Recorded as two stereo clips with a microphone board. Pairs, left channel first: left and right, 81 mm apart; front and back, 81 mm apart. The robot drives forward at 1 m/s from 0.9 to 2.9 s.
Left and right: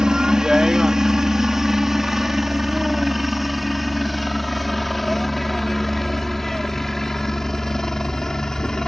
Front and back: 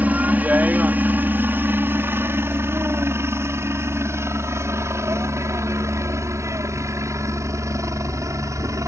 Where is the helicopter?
155° right; by 8.9 s 170° left.